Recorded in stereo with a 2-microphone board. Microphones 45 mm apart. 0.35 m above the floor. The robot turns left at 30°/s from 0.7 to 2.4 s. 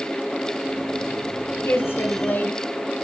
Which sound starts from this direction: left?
A woman speaking, at 1.6 s.